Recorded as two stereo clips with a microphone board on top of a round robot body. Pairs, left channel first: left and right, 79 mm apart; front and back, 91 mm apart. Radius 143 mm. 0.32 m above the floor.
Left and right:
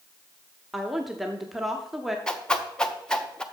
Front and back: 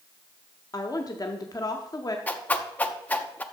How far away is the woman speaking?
About 1.1 m.